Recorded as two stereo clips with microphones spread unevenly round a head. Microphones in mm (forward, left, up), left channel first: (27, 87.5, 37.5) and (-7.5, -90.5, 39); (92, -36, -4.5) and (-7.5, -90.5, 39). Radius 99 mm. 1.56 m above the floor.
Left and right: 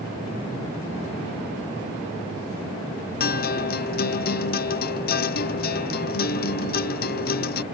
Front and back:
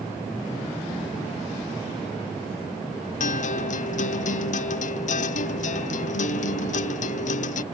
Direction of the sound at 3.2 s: 35° left.